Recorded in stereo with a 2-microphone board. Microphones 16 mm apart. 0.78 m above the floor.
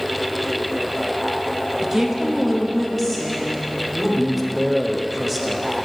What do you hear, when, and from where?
1.8 s a woman speaking: 30° right (ahead or behind), 0.7 m; by 4.1 s 15° left (ahead or behind), 1.5 m
4.2 s a man speaking: 10° right (ahead or behind), 0.6 m